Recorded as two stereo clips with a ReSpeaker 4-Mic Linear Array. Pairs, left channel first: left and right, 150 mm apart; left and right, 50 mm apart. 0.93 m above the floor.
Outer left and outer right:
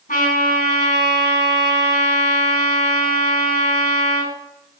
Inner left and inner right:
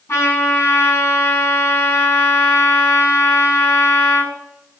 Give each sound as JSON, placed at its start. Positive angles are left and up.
{"t": 0.1, "sound": "a trumpet", "side_deg": 65, "distance_m": 8.0}